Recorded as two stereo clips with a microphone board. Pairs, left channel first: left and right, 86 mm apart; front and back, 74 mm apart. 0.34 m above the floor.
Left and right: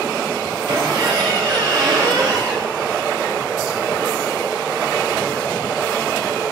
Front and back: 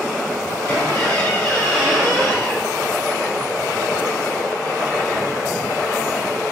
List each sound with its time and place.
0.7 s a squeak: 60° right, 3 m